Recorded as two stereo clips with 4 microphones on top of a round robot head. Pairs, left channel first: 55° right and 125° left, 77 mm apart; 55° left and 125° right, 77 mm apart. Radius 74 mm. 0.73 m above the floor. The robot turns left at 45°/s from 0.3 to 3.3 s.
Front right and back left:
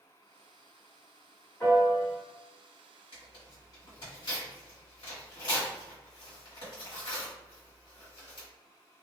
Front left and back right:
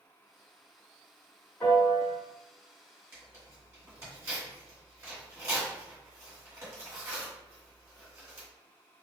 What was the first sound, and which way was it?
A piano, 5° left.